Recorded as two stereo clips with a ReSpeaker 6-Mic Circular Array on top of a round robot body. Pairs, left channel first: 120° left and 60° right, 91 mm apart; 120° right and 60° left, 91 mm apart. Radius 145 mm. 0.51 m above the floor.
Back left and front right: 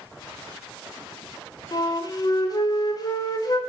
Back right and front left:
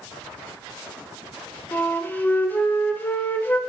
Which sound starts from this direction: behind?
A flute, at 1.7 s.